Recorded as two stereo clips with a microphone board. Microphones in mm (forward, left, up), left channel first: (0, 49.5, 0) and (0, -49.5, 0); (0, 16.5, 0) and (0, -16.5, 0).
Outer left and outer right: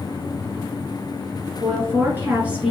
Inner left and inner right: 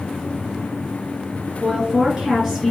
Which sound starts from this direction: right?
A woman speaking, at 1.6 s.